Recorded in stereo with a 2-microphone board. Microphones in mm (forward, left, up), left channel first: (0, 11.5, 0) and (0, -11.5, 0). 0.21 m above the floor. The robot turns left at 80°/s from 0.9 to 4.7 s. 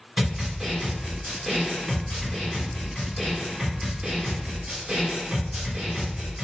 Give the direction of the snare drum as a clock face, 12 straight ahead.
5 o'clock.